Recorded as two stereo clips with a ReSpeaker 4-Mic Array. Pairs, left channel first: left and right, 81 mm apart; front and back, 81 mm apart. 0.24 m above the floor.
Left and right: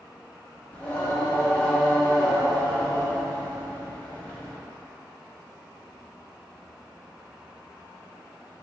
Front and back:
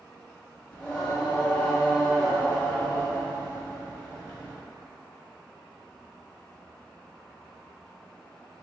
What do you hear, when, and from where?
0.7 s singing: 55° left, 1.2 m